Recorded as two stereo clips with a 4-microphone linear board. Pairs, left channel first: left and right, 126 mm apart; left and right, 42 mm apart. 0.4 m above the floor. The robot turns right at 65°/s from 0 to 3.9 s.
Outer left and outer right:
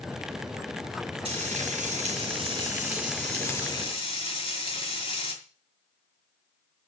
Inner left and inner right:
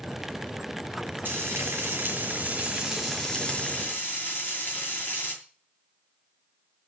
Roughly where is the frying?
Behind right.